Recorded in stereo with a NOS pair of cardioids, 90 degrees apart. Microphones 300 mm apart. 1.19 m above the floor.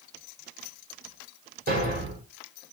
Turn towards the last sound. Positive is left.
turn(degrees=-30)